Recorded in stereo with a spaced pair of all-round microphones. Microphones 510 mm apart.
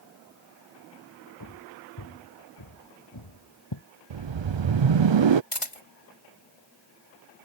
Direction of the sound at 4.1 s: 60° right (ahead or behind).